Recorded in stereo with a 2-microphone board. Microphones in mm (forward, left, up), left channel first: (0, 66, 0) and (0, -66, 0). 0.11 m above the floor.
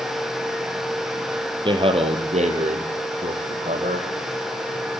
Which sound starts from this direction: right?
A man speaking, at 1.6 s.